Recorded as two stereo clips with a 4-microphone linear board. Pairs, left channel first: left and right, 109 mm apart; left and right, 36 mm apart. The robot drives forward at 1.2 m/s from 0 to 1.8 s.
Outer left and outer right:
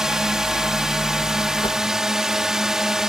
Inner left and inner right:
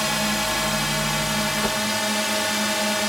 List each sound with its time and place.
0.0 s a drone: 5° right (ahead or behind)
1.6 s a whoosh: 50° left (ahead or behind)